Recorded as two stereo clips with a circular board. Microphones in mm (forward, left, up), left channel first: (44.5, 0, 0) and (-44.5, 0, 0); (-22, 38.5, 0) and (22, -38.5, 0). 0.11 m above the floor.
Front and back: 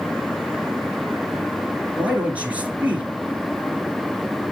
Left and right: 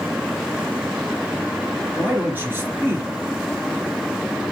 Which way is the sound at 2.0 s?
115° right.